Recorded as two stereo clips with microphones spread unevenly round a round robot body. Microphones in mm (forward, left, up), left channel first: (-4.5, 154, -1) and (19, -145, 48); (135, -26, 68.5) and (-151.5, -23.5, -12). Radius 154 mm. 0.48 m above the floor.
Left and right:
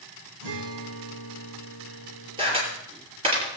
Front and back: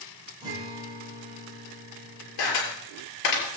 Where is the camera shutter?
10° right, 6.5 m.